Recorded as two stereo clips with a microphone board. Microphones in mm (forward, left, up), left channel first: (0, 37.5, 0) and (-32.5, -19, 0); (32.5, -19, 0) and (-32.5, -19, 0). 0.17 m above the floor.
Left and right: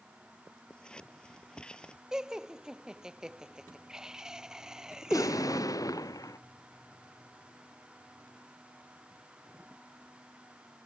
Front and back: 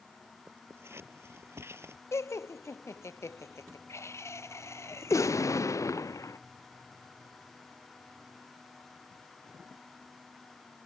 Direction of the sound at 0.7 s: 135° left.